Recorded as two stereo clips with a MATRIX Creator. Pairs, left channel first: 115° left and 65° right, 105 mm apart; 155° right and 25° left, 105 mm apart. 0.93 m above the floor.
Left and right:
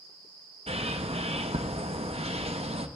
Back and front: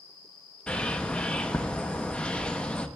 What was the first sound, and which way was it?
A bird, 80° right.